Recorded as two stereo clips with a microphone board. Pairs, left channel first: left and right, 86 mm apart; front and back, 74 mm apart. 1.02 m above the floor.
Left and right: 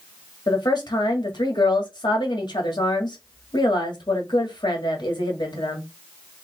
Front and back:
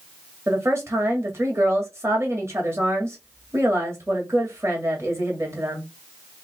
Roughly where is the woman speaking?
Behind left.